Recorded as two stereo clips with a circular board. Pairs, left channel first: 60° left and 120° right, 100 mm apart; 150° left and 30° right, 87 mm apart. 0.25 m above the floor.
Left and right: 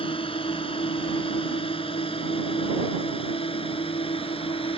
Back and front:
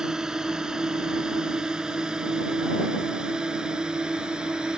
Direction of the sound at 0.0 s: 55° left.